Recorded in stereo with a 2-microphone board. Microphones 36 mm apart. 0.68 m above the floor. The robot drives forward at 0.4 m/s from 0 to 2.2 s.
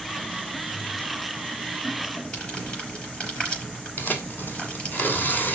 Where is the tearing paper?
55° left (ahead or behind), 2.5 m.